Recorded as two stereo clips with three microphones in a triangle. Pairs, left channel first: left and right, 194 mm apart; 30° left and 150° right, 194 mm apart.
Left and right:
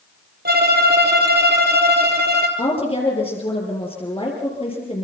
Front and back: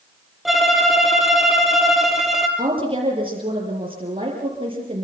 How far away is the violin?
About 3 m.